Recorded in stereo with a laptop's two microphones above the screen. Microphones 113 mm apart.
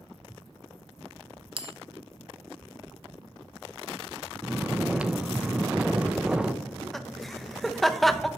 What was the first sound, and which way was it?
A bell, 50° right (ahead or behind).